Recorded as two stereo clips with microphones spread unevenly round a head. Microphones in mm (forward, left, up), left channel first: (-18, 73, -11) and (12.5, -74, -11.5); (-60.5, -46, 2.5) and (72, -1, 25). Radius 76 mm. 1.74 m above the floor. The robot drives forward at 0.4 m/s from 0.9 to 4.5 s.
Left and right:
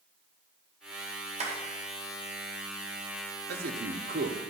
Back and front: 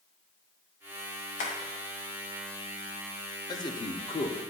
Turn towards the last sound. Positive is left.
turn(degrees=-115)